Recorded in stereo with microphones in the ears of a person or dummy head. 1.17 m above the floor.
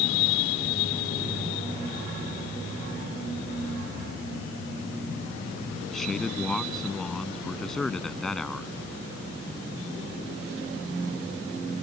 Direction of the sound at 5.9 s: Centre (ahead or behind).